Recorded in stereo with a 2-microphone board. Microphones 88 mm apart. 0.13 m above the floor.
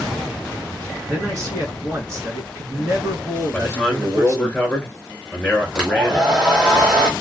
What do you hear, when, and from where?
1.0 s a man speaking: 35° right (ahead or behind), 1.9 m
3.5 s a man speaking: 15° left (ahead or behind), 1.5 m
5.8 s a hair dryer: 10° right (ahead or behind), 1.1 m